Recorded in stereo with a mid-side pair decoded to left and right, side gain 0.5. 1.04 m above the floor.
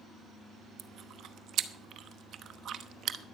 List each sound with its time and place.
0.8 s chewing: 60° right, 0.9 m